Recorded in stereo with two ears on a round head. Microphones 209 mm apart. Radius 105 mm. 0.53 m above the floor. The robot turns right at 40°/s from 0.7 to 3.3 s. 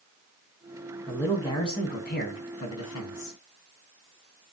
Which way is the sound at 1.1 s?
Straight ahead.